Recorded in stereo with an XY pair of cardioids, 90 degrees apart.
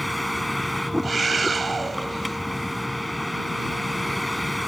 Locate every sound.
0.0 s a vehicle: 5° left
1.0 s a scream: 30° right